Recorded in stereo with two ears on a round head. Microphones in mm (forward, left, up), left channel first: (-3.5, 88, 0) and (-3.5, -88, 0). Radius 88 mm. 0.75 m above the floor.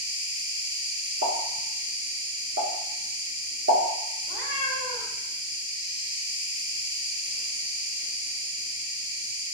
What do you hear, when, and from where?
0.0 s an insect: 25° right (ahead or behind), 1.0 m
1.2 s a pop: 60° right (ahead or behind), 1.8 m
4.2 s a cat meowing: 50° right (ahead or behind), 1.7 m